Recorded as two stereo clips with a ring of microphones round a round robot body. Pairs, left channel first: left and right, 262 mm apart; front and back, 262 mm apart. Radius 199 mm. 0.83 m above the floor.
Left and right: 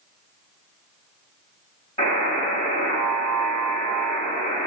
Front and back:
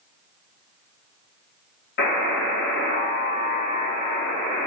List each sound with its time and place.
2.0 s a buzzer: 20° left, 0.7 m